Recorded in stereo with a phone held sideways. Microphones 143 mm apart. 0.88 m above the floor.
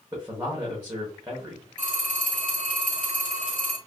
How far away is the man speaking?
About 0.9 m.